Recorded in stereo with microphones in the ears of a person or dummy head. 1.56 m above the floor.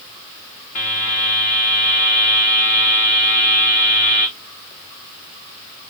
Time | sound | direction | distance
0.8 | a buzzer | 40° left (ahead or behind) | 1.0 m